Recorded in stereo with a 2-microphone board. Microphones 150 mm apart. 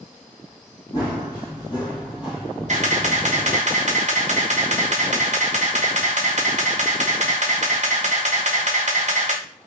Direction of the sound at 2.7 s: 50° right (ahead or behind).